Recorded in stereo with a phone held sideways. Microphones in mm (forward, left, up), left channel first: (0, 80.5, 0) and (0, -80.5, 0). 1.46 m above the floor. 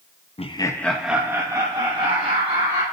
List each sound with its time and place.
0.4 s laughter: 40° left (ahead or behind), 0.5 m; by 2.8 s 35° right (ahead or behind), 1.8 m